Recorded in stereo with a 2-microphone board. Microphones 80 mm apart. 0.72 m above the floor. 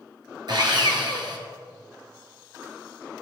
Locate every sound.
0.5 s sawing: 60° right (ahead or behind), 1.8 m